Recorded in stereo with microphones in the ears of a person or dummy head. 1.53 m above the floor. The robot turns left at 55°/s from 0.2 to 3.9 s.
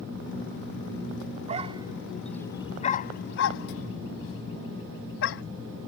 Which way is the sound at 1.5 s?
35° right (ahead or behind).